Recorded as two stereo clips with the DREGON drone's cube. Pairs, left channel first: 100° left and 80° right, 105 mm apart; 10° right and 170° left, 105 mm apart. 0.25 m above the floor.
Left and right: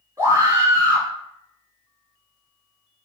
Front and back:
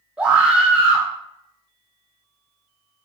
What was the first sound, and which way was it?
A scream, 120° right.